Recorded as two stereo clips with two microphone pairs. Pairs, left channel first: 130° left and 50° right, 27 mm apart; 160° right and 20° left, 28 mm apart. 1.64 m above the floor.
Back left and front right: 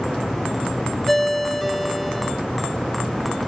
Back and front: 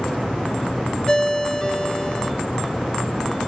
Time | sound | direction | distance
1.1 | a ringtone | 165° right | 0.8 m